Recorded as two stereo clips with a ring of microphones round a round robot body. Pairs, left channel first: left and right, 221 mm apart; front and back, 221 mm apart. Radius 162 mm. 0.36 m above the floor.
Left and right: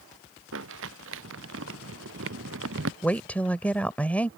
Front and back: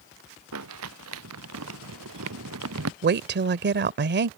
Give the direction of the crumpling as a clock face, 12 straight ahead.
5 o'clock.